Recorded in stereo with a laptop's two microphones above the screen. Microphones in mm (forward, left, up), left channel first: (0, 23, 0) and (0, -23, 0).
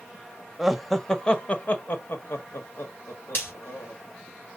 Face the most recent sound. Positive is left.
turn(degrees=55)  # may be behind; listen again after turning